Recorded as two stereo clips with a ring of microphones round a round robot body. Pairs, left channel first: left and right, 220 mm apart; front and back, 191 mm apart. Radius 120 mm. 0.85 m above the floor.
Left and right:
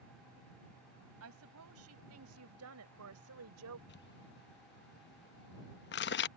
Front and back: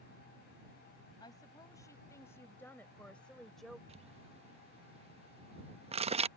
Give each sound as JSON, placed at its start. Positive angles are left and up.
{"t": 1.2, "sound": "a woman speaking", "azimuth_deg": -75}
{"t": 3.9, "sound": "crumpling", "azimuth_deg": 125}